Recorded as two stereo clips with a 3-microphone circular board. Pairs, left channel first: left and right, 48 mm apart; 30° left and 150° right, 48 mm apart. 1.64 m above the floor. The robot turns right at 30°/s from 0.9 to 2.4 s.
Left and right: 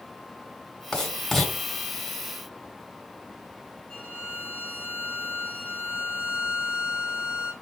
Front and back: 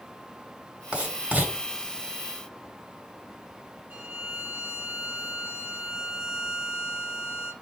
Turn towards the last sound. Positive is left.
turn(degrees=160)